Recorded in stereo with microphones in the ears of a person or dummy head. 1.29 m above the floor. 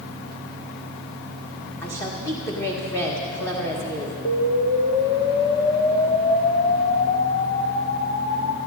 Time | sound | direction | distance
1.8 | a woman speaking | 20° left (ahead or behind) | 1.8 m
4.2 | an explosion | 20° left (ahead or behind) | 0.8 m